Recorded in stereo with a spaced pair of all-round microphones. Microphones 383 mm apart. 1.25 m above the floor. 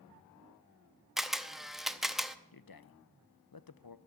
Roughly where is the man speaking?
Left.